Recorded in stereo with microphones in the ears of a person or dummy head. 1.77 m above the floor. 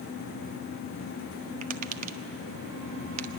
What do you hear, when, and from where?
1.6 s tapping: 45° right (ahead or behind), 1.1 m